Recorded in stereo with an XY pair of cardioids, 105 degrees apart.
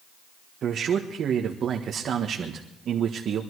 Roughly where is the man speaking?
Ahead right.